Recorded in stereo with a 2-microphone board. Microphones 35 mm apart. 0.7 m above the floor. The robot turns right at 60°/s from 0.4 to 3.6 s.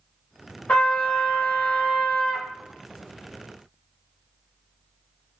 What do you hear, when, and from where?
0.7 s a trumpet: 90° left, 0.7 m; by 2.5 s 165° right, 0.7 m